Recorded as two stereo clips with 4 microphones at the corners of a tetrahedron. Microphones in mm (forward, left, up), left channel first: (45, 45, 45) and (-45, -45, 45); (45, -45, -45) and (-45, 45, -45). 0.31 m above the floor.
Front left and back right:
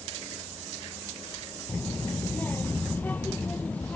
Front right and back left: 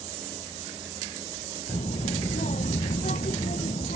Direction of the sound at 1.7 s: 25° right.